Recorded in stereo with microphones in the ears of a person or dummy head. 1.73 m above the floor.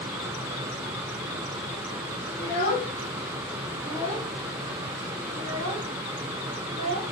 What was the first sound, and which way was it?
A child speaking, 25° left (ahead or behind).